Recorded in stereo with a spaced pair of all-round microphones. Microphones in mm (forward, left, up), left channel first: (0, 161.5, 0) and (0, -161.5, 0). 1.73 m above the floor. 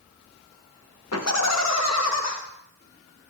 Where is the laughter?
50° left (ahead or behind), 1.0 m.